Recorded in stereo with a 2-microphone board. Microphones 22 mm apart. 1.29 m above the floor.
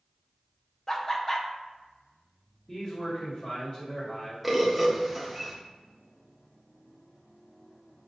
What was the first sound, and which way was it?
Laughter, 25° left (ahead or behind).